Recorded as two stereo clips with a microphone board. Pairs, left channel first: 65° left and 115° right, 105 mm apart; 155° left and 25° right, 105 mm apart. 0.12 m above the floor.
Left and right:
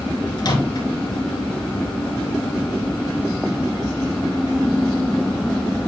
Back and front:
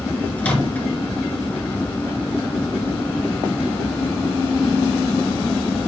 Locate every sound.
0.4 s a microwave: 85° left, 1.7 m